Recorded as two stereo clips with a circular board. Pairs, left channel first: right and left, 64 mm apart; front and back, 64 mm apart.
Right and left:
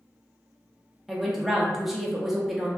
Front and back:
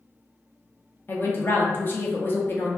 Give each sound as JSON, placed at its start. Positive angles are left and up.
{"t": 1.1, "sound": "a woman speaking", "azimuth_deg": 5, "distance_m": 0.6}